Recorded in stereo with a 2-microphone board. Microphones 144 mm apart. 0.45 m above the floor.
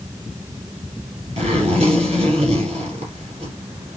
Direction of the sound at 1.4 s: 45° right (ahead or behind).